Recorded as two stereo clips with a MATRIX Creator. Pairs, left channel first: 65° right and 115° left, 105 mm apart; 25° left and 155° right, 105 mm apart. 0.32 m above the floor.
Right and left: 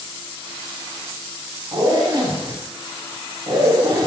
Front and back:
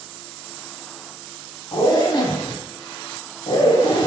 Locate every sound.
1.7 s a zipper: 65° left, 0.6 m